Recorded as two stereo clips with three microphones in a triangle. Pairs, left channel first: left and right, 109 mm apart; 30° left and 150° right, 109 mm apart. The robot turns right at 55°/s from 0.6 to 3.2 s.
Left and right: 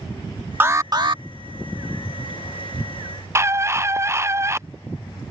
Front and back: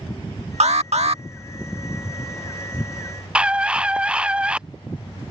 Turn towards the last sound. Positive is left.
turn(degrees=-85)